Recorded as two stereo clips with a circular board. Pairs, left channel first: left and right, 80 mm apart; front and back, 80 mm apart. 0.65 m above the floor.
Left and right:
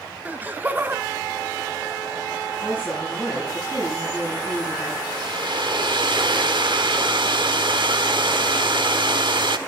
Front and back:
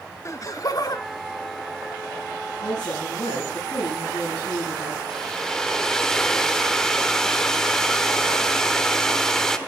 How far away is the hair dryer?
About 1.3 m.